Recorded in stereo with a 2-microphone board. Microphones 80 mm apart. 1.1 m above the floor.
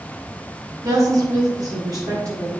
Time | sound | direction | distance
0.8 | a woman speaking | 45° right (ahead or behind) | 3 m